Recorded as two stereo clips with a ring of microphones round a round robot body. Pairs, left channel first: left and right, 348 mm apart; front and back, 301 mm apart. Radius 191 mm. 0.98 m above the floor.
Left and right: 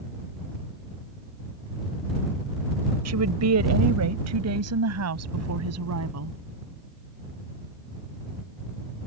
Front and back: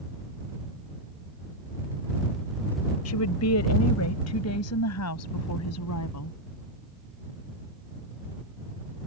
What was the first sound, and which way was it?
A woman speaking, 45° right.